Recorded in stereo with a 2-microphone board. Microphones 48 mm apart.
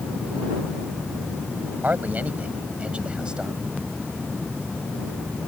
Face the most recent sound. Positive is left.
turn(degrees=-15)  # may be behind; listen again after turning